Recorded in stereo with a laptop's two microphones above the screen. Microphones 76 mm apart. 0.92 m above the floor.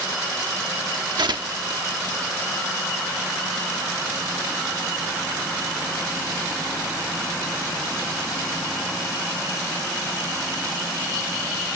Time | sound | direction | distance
1.2 | tearing paper | 75° right (ahead or behind) | ?